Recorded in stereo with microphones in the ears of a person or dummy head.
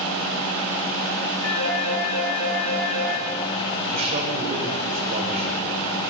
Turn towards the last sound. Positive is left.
turn(degrees=-40)  # may be behind; listen again after turning